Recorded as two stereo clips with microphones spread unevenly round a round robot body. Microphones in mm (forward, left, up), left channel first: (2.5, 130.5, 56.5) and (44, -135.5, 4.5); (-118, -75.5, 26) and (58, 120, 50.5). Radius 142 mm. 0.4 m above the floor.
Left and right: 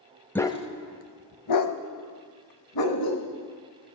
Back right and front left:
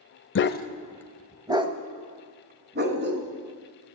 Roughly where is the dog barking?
Behind.